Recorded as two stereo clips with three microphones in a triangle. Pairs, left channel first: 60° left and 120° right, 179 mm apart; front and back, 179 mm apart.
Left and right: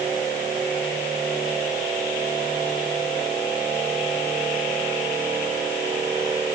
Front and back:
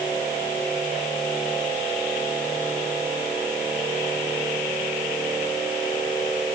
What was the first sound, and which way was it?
Only background noise.